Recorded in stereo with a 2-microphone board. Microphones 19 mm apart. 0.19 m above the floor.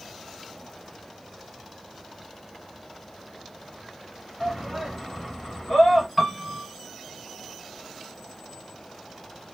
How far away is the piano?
About 1.1 m.